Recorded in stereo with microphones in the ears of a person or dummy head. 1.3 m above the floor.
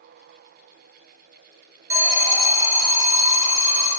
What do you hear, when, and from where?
1.9 s an alarm: 15° right (ahead or behind), 1.9 m